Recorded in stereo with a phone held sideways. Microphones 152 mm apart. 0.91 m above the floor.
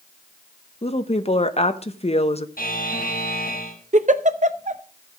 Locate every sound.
0.8 s a woman speaking: 45° left (ahead or behind), 0.9 m
2.6 s a buzzer: 75° left (ahead or behind), 5 m
3.9 s a giggle: 50° right (ahead or behind), 0.7 m